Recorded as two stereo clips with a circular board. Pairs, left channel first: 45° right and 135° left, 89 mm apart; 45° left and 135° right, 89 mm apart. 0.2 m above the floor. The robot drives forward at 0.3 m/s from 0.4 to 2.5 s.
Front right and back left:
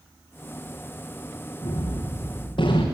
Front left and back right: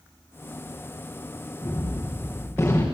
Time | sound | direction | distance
1.6 | a gunshot | 25° right | 6.5 m